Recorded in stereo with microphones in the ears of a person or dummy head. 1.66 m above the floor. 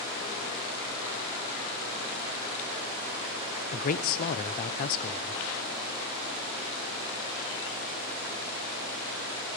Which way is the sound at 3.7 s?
45° left (ahead or behind).